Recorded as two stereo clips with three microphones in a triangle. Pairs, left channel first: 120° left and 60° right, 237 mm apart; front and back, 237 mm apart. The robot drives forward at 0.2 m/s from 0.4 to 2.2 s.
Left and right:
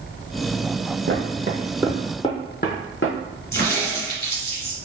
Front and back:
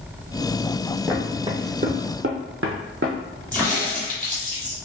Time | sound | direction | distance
1.1 | footsteps | 90° right | 0.7 m
3.5 | a crack | 85° left | 1.8 m